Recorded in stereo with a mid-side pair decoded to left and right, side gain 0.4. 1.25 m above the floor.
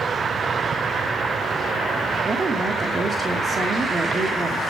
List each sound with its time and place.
2.2 s a woman speaking: 45° right, 2.5 m